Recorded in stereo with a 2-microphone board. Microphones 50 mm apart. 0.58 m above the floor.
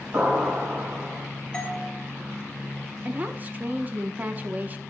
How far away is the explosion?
About 3 m.